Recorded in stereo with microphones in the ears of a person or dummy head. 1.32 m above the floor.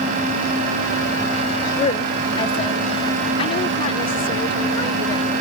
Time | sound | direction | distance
1.8 | a woman speaking | 35° left (ahead or behind) | ?